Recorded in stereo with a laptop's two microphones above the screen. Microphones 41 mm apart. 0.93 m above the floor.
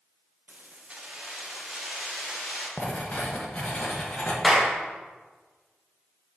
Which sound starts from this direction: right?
Keys jangling, at 0.5 s.